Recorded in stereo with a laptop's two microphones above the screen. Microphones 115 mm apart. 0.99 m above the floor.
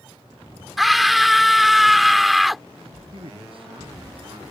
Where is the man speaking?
55° right (ahead or behind).